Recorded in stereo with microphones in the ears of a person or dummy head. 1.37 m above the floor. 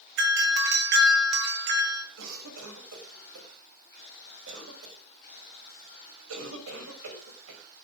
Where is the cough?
85° right, 6 m.